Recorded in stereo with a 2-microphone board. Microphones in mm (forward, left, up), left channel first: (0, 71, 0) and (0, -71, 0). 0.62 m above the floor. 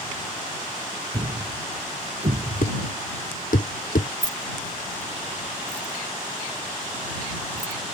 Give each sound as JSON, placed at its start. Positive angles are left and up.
{"t": 1.1, "sound": "a thud", "side_deg": -70}
{"t": 2.6, "sound": "a thud", "side_deg": 80}
{"t": 4.2, "sound": "keys jangling", "side_deg": -80}